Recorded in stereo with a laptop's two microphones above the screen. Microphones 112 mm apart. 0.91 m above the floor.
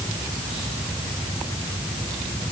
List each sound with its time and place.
Only background noise.